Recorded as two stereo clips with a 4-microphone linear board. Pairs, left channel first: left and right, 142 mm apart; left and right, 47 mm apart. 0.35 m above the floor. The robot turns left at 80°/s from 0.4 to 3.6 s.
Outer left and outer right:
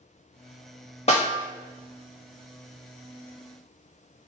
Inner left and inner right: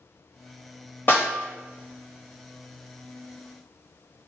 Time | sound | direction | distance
1.1 | a snare drum | 45° left (ahead or behind) | 1.1 m